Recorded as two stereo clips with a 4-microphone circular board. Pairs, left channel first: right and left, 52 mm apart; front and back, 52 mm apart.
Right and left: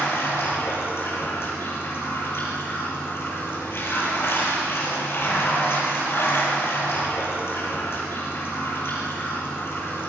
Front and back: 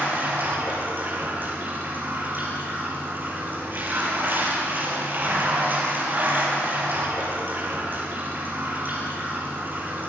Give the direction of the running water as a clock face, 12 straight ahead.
4 o'clock.